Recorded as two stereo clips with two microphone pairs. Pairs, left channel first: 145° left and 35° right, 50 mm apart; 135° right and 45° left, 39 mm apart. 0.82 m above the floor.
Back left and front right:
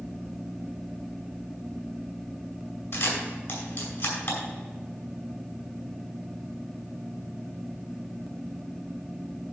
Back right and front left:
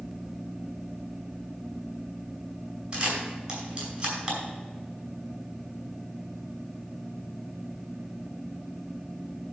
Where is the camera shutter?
115° left, 4.5 m.